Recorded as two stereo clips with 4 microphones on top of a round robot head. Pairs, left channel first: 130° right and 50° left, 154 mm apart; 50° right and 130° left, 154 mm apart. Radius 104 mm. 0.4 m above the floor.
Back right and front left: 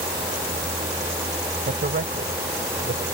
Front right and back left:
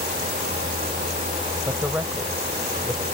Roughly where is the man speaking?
Ahead left.